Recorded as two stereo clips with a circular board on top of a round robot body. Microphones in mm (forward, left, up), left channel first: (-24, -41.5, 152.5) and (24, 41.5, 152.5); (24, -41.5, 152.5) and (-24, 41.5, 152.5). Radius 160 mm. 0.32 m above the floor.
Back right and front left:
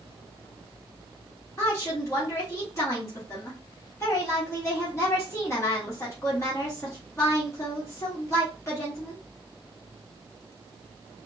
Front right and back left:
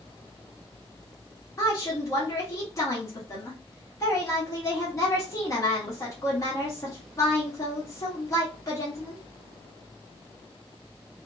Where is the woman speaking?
80° right, 1.4 m.